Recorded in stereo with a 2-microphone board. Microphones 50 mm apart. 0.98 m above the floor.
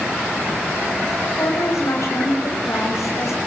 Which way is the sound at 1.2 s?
80° left.